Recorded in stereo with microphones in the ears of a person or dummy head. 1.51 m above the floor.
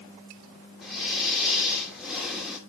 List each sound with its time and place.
0.8 s breathing: centre (ahead or behind), 3 m